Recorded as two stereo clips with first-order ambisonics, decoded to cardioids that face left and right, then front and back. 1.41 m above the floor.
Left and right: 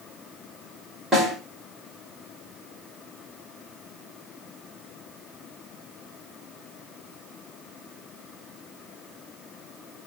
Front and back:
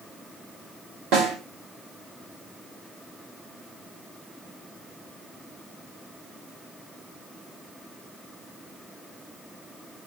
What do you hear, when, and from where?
1.1 s a snare drum: 170° right, 5 m